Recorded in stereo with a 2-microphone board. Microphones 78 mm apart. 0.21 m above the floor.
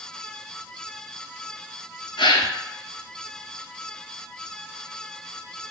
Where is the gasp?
85° left, 0.6 m.